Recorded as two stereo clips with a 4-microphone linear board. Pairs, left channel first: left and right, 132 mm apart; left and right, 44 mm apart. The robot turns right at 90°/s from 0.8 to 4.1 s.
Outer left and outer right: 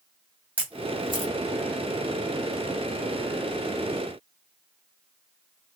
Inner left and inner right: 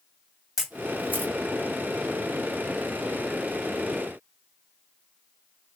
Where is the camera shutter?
10° right (ahead or behind), 1.9 m; by 1.3 s 55° right (ahead or behind), 1.9 m.